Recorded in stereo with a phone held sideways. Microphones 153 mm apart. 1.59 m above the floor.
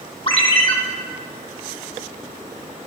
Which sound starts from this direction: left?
A ringtone, at 0.3 s.